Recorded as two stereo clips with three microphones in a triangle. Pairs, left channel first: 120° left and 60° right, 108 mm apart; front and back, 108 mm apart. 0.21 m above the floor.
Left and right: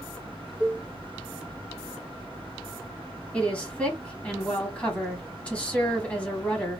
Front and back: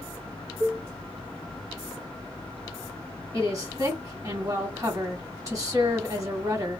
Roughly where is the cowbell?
Behind right.